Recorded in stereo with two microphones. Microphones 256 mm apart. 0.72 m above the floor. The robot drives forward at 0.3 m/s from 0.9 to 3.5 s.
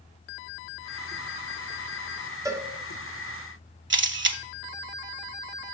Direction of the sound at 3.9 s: 50° right (ahead or behind).